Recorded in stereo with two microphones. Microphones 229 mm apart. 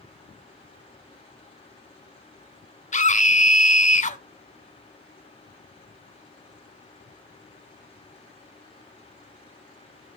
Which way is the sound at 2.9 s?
30° left (ahead or behind).